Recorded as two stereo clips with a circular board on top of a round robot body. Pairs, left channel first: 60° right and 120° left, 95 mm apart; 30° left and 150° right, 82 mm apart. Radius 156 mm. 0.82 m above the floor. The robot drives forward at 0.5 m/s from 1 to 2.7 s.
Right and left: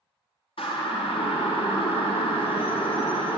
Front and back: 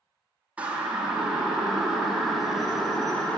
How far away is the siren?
About 2.5 m.